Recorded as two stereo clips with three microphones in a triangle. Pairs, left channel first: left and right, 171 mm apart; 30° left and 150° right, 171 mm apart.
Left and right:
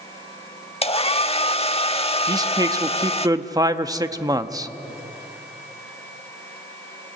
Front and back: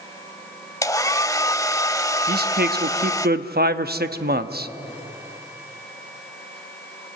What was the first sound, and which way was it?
A hair dryer, 85° left.